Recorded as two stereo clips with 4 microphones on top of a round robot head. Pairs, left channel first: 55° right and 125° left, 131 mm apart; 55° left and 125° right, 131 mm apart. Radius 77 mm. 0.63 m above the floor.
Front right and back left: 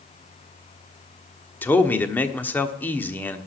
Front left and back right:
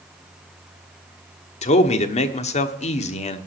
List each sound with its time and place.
1.6 s a man speaking: 25° left, 1.2 m